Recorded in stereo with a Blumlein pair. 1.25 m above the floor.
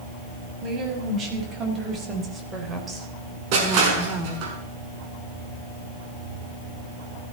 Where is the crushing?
45° right, 5.5 m.